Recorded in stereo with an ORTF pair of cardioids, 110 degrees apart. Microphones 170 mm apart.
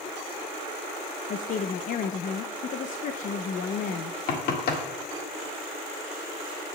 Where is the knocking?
65° left, 1.7 m.